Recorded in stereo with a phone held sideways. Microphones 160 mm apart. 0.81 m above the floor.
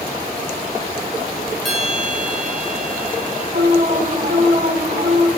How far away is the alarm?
About 4.5 m.